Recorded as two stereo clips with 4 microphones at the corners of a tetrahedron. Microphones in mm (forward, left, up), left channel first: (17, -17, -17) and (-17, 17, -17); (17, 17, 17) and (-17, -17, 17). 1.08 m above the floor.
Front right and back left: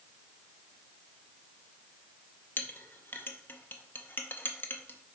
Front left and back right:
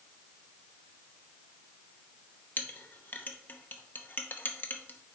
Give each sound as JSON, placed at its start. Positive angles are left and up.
{"t": 2.6, "sound": "a clink", "azimuth_deg": 0, "distance_m": 0.8}